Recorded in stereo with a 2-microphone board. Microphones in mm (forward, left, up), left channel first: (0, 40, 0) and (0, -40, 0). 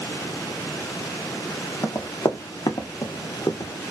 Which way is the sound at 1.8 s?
45° left (ahead or behind).